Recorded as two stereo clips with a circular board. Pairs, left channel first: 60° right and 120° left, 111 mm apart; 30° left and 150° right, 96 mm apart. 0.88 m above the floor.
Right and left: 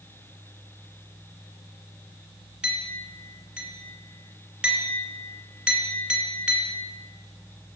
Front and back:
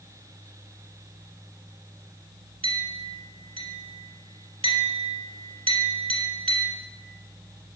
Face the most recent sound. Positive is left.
turn(degrees=-155)